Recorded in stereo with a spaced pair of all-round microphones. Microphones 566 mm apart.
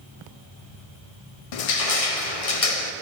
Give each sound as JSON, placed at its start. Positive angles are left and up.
{"t": 1.5, "sound": "crushing", "side_deg": 75, "distance_m": 0.6}